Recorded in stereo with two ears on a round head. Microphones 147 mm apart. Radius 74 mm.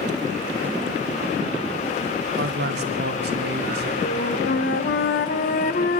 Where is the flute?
60° left (ahead or behind), 0.9 m.